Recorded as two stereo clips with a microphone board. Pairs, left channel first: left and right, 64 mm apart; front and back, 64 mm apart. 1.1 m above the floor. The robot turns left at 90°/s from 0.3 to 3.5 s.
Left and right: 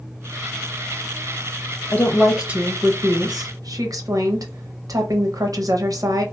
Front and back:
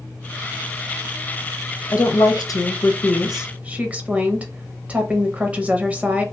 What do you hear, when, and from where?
1.9 s a woman speaking: 30° left, 0.7 m; by 6.2 s 110° right, 0.7 m